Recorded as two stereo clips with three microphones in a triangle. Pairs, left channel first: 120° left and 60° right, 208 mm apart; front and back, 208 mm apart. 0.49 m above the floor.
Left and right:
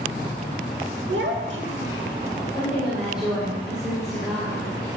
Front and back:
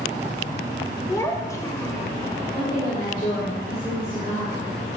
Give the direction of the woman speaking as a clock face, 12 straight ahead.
11 o'clock.